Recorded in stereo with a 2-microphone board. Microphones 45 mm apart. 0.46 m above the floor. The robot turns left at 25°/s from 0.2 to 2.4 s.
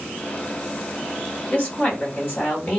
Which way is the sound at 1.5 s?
30° left (ahead or behind).